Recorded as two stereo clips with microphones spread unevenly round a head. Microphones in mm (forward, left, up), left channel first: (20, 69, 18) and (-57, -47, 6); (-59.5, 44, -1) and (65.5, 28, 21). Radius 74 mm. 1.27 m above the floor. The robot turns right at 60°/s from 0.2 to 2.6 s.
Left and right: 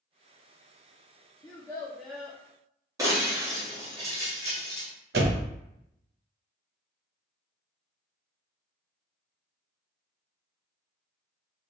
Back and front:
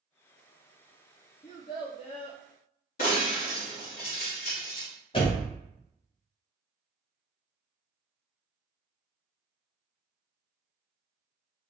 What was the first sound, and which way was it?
A child speaking, 105° left.